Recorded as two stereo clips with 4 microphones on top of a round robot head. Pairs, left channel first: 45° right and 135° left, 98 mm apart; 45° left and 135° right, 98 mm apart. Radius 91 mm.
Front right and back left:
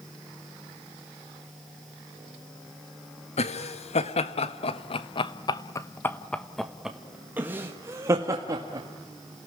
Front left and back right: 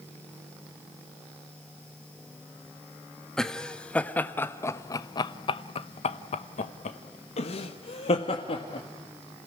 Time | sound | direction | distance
3.4 | laughter | 40° right | 1.6 m